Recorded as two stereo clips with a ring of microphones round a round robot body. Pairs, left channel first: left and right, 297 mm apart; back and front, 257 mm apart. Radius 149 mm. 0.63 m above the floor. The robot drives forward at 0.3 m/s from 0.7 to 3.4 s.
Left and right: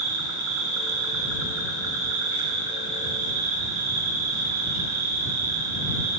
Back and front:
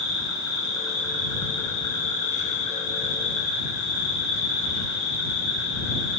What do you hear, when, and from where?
0.0 s an insect: 105° right, 2.5 m; by 6.2 s 120° right, 3 m